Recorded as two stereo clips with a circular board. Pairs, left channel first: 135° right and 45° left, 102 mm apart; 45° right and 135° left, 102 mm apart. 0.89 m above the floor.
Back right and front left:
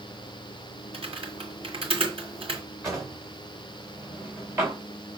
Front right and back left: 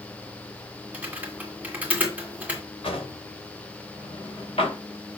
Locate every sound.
0.9 s typing on a keyboard: 60° left, 2 m
2.8 s a drawer: 15° right, 3 m